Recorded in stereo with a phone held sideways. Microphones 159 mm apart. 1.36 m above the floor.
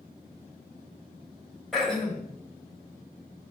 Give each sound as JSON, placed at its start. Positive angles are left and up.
{"t": 1.7, "sound": "throat clearing", "side_deg": 0, "distance_m": 2.0}